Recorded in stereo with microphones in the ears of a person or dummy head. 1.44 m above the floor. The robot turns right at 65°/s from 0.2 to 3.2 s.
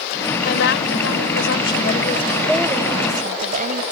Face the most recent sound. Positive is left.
turn(degrees=-135)